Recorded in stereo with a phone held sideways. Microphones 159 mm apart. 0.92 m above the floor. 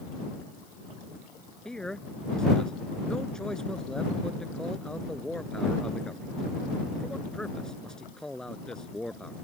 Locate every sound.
1.6 s a man speaking: 5° left (ahead or behind)